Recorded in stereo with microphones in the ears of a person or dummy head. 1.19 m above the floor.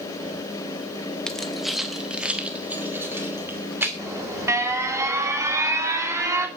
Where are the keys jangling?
5° left (ahead or behind), 1.0 m; by 3.9 s 10° right (ahead or behind), 2.5 m.